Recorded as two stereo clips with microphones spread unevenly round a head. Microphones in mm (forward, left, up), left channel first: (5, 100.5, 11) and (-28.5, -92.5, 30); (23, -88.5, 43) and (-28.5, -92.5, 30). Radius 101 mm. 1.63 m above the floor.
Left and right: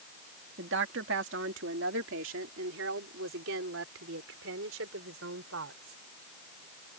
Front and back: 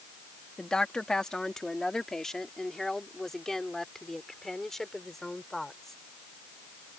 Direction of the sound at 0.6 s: 65° right.